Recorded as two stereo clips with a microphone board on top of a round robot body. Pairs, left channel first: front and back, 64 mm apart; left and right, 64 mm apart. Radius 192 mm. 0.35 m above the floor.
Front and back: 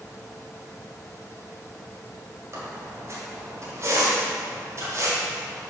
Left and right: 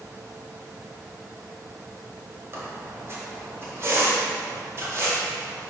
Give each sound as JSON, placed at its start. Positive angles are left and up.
{"t": 2.5, "sound": "a squeak", "azimuth_deg": -140, "distance_m": 1.9}